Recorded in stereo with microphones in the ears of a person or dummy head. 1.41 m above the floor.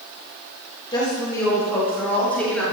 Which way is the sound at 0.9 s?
20° left (ahead or behind).